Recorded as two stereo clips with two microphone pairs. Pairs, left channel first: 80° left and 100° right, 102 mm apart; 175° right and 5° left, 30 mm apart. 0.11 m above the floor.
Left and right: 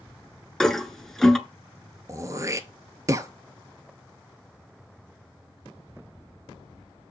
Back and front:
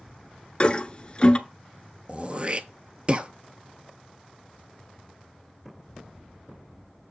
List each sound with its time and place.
0.6 s a toilet flushing: 160° left, 0.7 m
2.1 s throat clearing: 45° right, 0.6 m